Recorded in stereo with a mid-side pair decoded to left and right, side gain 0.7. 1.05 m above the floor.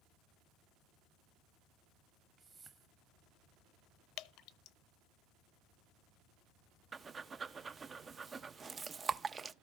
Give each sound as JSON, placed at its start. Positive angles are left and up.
{"t": 2.4, "sound": "a whoosh", "azimuth_deg": -25, "distance_m": 1.3}
{"t": 4.2, "sound": "dripping", "azimuth_deg": 55, "distance_m": 0.8}
{"t": 6.9, "sound": "breathing", "azimuth_deg": -25, "distance_m": 0.5}